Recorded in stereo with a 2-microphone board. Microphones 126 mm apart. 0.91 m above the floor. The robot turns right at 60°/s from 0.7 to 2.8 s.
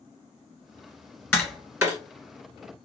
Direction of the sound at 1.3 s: 10° left (ahead or behind).